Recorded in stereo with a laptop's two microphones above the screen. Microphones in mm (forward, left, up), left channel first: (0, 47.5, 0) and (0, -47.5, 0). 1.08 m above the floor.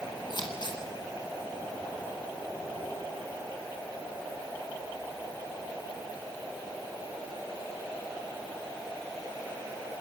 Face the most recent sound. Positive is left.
turn(degrees=50)  # may be behind; listen again after turning